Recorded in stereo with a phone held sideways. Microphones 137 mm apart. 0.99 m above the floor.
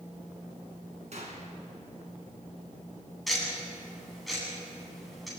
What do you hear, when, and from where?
1.1 s a gunshot: 55° right (ahead or behind), 4 m
3.3 s ticking: centre (ahead or behind), 9 m